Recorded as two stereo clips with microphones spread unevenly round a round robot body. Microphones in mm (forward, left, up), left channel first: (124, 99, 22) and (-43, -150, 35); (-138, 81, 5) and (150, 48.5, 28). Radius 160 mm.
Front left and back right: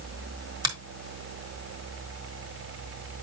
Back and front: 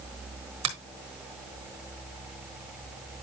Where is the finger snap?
50° right, 3.5 m.